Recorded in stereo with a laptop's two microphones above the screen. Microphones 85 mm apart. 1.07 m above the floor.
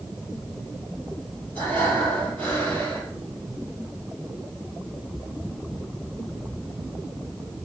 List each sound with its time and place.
1.6 s breathing: 15° left (ahead or behind), 5 m